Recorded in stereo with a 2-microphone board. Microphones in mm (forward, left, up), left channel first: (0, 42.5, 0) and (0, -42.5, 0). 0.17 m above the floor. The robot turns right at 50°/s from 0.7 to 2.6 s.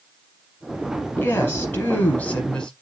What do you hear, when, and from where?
1.2 s a woman speaking: 25° left (ahead or behind), 1.1 m; by 2.7 s 10° left (ahead or behind), 1.1 m